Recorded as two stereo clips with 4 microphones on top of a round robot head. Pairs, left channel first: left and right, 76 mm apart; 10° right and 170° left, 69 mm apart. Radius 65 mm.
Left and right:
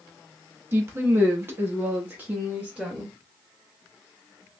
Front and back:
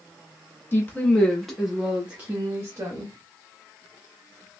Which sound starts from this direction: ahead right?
A woman speaking, at 0.7 s.